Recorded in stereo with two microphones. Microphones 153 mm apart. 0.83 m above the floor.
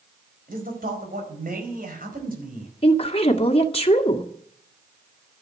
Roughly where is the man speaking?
Right.